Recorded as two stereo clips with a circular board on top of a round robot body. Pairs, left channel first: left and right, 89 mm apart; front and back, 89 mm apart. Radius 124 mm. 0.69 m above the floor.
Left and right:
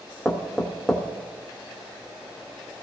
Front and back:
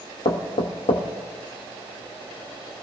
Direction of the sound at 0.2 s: Straight ahead.